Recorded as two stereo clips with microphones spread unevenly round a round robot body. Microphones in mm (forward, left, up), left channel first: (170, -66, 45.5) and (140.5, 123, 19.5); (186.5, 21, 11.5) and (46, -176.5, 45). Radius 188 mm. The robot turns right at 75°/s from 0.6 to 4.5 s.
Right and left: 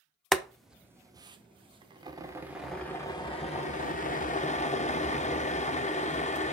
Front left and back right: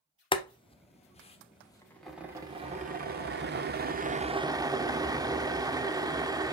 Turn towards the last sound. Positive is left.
turn(degrees=-45)